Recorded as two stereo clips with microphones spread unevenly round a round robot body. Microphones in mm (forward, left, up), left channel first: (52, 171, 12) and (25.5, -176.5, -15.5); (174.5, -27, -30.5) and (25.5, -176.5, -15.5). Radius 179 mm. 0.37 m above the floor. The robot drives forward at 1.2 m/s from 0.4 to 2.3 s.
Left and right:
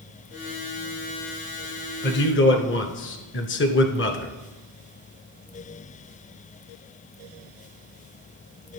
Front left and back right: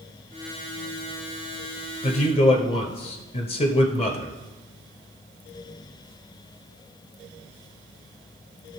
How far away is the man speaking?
About 1.1 m.